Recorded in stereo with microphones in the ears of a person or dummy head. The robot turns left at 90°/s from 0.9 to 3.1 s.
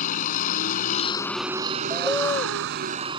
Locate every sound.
0.0 s a vehicle: 45° left; by 3.2 s 150° right
1.9 s a bird: 165° right; by 2.6 s 135° left